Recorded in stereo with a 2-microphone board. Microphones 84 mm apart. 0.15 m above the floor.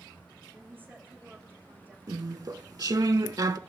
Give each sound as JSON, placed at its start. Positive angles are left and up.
{"t": 0.5, "sound": "a woman speaking", "side_deg": -25, "distance_m": 8.5}
{"t": 2.1, "sound": "chewing", "side_deg": -45, "distance_m": 0.6}